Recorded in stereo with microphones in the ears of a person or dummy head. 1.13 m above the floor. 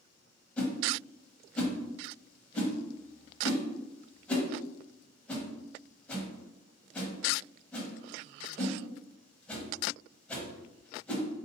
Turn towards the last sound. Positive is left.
turn(degrees=10)  # may be behind; listen again after turning